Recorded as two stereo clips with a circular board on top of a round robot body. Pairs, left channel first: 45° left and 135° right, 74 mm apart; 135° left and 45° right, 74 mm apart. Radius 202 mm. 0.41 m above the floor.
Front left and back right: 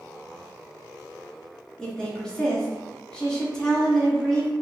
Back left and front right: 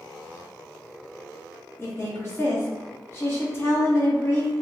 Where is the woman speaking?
115° left, 1.2 m.